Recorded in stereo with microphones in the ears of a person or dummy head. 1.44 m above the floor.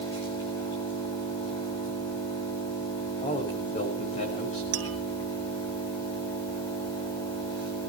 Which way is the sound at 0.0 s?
15° left (ahead or behind).